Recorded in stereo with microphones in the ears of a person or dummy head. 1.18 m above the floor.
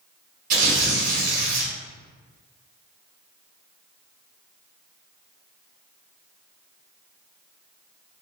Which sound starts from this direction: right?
Tearing paper, at 0.5 s.